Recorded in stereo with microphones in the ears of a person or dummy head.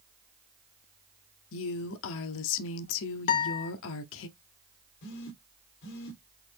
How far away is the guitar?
About 0.6 m.